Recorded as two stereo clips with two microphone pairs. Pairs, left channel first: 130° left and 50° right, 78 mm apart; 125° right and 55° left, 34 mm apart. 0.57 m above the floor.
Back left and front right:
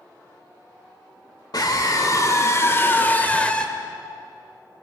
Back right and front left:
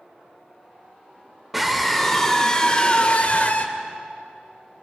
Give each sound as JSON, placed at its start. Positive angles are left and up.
{"t": 1.5, "sound": "a scream", "azimuth_deg": 140, "distance_m": 2.0}